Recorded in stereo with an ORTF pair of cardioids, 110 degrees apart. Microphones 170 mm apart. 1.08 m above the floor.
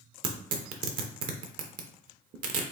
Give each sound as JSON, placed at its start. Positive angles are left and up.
{"t": 0.2, "sound": "tearing paper", "azimuth_deg": -55, "distance_m": 0.8}